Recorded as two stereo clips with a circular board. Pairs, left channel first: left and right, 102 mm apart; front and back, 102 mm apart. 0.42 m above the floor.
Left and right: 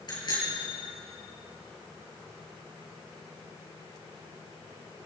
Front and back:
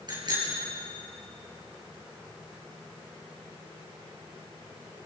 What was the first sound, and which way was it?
A bicycle bell, 135° left.